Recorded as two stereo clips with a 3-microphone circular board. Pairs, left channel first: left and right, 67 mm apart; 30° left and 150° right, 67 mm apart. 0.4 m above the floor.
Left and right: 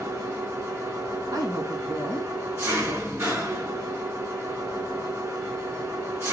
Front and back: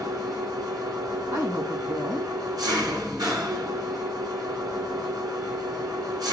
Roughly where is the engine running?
Behind right.